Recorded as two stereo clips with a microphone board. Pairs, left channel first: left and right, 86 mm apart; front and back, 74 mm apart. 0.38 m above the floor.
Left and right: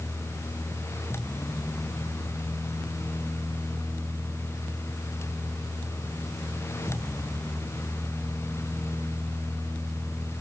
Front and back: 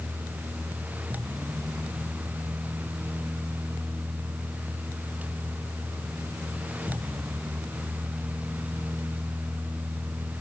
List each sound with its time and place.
Only background noise.